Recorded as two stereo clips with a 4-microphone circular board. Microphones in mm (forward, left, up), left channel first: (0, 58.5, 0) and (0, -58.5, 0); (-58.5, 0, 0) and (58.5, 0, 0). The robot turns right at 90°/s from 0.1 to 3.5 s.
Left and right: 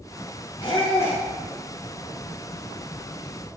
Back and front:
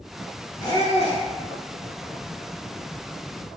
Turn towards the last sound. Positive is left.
turn(degrees=15)